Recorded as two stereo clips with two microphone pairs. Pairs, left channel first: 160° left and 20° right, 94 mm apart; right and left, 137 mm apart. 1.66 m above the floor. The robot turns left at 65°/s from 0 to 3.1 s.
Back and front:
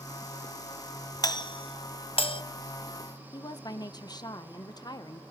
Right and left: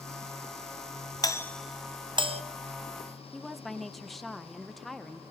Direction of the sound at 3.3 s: Straight behind.